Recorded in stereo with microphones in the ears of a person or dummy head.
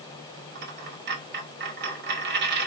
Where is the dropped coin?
50° right (ahead or behind), 4 m.